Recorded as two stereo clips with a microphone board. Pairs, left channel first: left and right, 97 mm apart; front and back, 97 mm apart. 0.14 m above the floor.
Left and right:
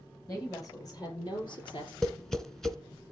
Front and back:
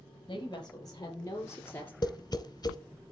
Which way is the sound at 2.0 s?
10° left.